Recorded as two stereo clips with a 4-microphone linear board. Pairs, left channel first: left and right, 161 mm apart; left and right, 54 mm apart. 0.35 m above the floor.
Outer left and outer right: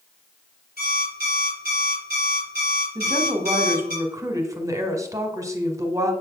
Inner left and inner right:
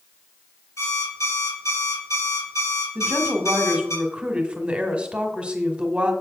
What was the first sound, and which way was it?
An alarm clock, 75° left (ahead or behind).